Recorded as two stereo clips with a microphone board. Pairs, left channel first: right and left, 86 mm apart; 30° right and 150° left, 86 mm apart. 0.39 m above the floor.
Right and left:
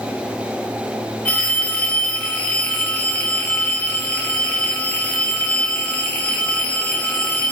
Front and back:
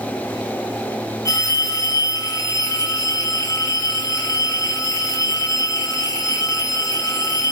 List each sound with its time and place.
1.2 s a phone ringing: 25° right, 1.0 m